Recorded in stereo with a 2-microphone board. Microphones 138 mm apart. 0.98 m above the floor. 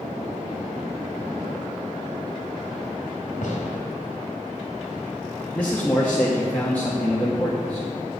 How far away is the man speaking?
About 1.2 m.